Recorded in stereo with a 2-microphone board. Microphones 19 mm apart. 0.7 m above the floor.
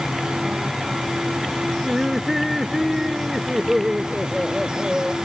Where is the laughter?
5° right (ahead or behind); by 5.2 s 30° right (ahead or behind).